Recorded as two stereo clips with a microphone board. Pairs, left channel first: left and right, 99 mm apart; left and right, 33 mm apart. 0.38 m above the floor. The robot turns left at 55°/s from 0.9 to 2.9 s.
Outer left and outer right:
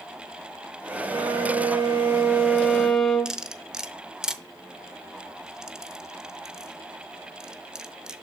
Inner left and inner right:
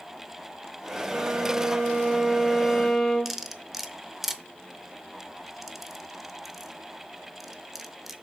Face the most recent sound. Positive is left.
turn(degrees=-5)  # may be behind; listen again after turning